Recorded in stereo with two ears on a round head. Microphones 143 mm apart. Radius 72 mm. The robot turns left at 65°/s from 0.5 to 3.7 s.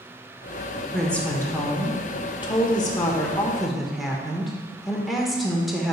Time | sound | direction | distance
0.9 | a woman speaking | straight behind | 1.1 m